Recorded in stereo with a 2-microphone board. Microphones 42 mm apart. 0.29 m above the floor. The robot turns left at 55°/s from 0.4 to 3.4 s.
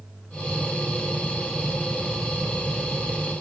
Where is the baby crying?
I don't hear a baby crying.